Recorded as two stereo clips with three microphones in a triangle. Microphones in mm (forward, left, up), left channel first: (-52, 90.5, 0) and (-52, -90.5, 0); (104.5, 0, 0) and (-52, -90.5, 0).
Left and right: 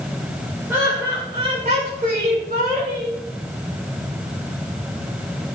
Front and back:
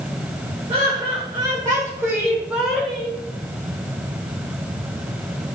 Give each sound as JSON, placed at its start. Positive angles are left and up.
{"t": 0.7, "sound": "laughter", "azimuth_deg": -160, "distance_m": 1.3}